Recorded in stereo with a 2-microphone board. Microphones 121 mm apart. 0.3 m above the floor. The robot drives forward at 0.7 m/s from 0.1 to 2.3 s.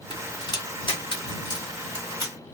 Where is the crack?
40° left (ahead or behind), 1.7 m; by 2.4 s 35° left (ahead or behind), 2 m.